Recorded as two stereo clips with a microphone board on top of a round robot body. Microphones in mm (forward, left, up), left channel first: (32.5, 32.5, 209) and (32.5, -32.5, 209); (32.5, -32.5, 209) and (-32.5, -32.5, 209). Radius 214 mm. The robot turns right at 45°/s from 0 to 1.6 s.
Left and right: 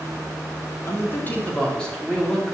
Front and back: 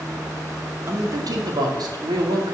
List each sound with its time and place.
0.9 s a man speaking: 135° left, 3 m; by 2.5 s 170° left, 3 m